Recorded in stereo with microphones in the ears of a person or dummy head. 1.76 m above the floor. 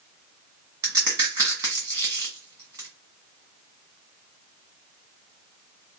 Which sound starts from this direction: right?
A crack, at 0.8 s.